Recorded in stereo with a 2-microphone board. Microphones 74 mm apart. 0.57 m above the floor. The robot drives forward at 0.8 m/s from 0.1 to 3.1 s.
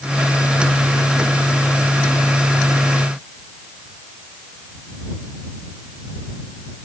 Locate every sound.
Only background noise.